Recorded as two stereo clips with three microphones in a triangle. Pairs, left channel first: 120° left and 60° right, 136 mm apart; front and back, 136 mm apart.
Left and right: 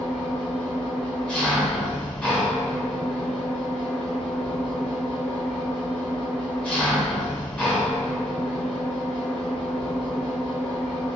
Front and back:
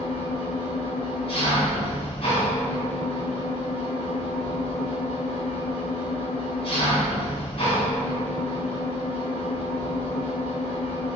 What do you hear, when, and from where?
0.0 s an engine running: 40° left, 1.5 m